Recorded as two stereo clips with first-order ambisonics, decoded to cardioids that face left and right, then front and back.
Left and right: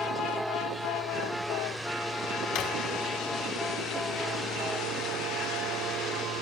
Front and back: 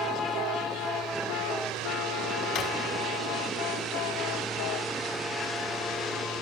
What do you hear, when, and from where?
2.5 s a drawer: 60° left, 2.5 m